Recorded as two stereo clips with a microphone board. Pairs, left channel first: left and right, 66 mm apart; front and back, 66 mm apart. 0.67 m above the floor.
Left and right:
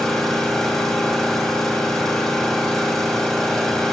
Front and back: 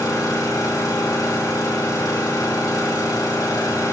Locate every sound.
0.0 s an engine running: 10° left, 3 m